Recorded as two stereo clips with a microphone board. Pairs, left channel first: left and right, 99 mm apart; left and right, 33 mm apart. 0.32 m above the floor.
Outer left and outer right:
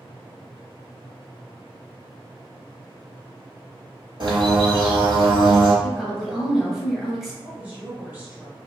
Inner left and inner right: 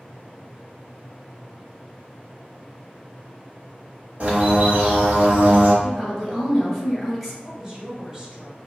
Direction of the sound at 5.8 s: 5° right (ahead or behind).